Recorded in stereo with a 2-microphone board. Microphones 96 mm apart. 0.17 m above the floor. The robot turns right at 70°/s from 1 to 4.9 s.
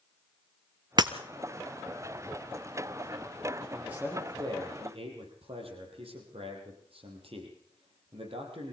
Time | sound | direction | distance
1.0 | breaking glass | 50° right (ahead or behind) | 1.2 m
3.7 | a man speaking | straight behind | 7 m